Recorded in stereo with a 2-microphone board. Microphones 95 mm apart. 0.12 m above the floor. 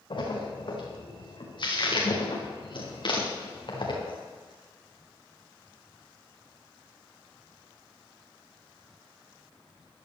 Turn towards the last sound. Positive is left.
turn(degrees=55)  # may be behind; listen again after turning